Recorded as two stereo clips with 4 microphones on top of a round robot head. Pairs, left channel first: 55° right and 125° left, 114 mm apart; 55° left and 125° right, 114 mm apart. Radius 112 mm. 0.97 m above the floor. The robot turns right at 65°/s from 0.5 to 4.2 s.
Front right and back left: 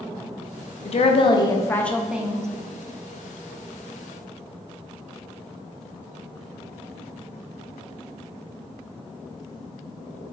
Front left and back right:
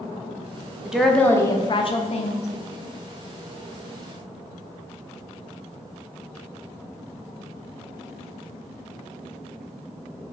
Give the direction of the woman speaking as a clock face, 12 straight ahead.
1 o'clock.